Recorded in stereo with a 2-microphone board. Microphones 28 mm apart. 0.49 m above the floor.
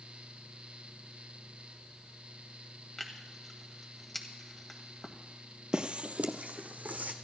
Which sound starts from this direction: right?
Footsteps, at 5.7 s.